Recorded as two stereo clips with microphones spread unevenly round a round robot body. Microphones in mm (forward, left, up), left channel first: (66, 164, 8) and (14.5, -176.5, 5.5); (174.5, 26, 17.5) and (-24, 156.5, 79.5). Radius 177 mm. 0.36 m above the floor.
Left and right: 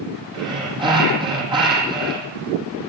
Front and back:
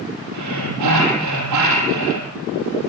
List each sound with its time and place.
0.3 s breathing: 175° right, 5.5 m